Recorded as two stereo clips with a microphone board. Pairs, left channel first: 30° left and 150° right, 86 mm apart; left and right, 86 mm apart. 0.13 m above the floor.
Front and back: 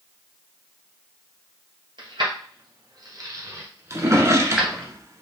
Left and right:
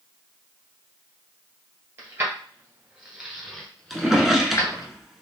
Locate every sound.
2.0 s keys jangling: 145° right, 2 m; by 4.9 s 110° left, 1.4 m
3.9 s a drawer: 175° right, 0.8 m